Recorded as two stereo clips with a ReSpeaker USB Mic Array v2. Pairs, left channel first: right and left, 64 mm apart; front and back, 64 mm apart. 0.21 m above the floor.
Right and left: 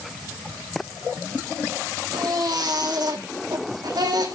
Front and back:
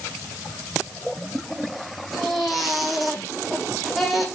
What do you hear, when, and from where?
2.1 s a baby crying: 90° left, 5 m